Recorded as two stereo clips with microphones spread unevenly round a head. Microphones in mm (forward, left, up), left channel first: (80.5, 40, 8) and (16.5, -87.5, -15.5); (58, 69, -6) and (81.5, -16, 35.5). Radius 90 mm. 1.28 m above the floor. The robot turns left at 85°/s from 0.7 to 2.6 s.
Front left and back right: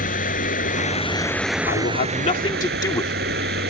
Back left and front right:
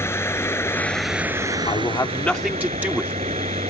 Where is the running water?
40° left; by 3.7 s 120° right.